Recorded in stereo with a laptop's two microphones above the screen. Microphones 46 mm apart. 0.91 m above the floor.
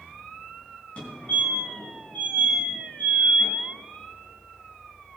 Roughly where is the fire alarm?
Left.